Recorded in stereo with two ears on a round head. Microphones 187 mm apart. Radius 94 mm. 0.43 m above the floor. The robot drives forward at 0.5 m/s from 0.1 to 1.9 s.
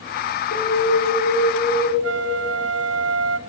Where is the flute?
75° right (ahead or behind), 0.7 m.